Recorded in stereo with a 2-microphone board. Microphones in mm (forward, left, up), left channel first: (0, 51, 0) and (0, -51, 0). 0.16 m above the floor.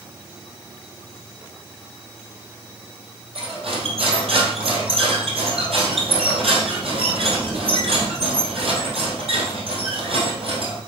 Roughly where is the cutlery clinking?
Right.